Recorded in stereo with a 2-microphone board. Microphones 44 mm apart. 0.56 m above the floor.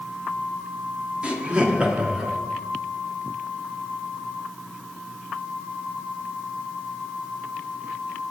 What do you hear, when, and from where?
1.2 s laughter: 25° right (ahead or behind), 0.9 m